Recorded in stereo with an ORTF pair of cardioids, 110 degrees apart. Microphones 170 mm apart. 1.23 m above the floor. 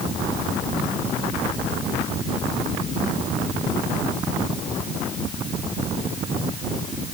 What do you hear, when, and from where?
Only background noise.